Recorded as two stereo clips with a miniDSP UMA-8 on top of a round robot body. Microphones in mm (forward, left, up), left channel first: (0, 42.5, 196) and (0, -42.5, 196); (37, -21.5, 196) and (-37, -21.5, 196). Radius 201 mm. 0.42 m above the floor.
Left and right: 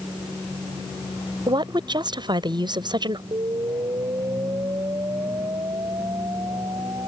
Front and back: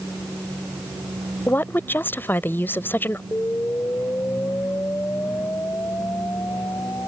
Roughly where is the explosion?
Ahead right.